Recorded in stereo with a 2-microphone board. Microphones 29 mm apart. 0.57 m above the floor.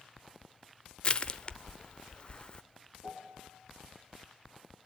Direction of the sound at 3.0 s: 90° left.